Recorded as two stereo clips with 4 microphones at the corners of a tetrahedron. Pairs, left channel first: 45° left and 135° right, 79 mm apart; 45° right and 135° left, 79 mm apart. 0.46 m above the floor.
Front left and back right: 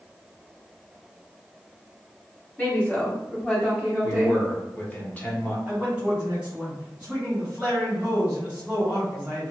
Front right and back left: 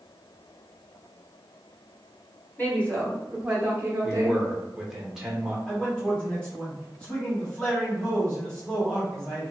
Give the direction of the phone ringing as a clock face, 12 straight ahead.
I don't hear a phone ringing.